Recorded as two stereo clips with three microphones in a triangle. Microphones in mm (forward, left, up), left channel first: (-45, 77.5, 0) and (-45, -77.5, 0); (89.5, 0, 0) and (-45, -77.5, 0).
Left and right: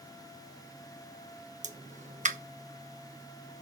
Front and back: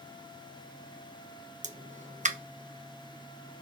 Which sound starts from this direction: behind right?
A pop, at 1.6 s.